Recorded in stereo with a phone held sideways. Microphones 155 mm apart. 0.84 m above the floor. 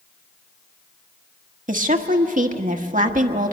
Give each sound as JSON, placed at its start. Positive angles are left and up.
{"t": 1.7, "sound": "a woman speaking", "side_deg": -60, "distance_m": 1.1}